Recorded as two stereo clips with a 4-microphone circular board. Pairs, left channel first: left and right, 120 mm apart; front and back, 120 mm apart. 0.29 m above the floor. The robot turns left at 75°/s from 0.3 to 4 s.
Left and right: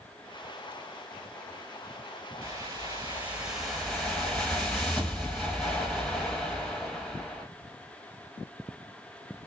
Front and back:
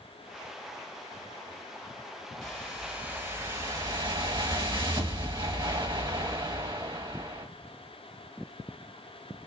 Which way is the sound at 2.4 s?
80° right.